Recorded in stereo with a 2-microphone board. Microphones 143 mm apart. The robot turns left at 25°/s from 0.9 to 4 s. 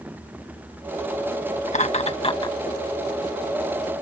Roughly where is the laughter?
Left.